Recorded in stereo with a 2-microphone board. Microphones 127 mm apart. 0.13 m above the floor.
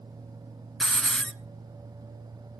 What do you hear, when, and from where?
0.8 s a hiss: 5° left (ahead or behind), 0.8 m